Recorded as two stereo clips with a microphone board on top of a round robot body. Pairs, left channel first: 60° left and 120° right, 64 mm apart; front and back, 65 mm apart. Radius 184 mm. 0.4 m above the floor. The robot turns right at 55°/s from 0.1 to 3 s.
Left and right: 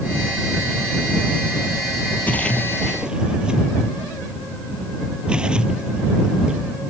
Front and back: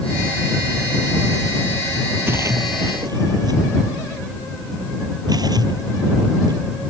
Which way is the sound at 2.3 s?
120° left.